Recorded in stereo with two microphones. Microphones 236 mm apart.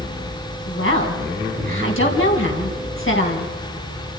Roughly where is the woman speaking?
Left.